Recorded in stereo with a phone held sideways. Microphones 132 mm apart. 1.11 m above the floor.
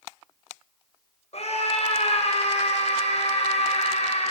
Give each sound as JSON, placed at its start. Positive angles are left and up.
{"t": 1.3, "sound": "a scream", "side_deg": 55, "distance_m": 4.5}